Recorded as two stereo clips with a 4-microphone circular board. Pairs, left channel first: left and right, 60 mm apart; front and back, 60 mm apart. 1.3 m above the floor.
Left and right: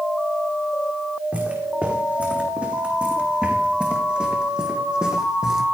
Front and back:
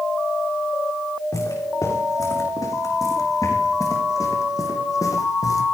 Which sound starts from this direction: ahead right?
Footsteps, at 1.3 s.